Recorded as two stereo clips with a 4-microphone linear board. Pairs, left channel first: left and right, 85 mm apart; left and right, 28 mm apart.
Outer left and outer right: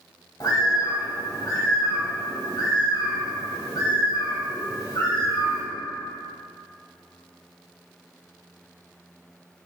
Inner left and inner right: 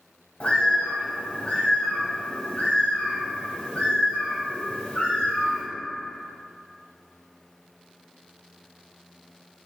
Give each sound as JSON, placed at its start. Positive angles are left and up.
{"t": 0.4, "sound": "a bird", "side_deg": 50, "distance_m": 1.4}